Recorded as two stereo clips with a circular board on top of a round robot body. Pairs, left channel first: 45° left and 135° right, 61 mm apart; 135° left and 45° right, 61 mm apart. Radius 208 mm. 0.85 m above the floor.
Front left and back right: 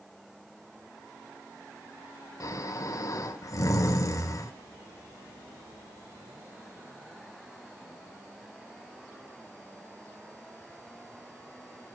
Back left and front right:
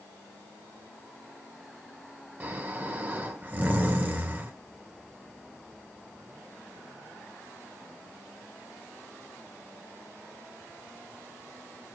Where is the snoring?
15° left, 3.5 m.